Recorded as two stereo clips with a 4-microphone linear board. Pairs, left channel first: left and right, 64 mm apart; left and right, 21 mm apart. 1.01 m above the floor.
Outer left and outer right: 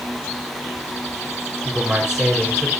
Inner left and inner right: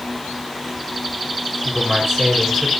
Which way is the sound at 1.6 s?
10° right (ahead or behind).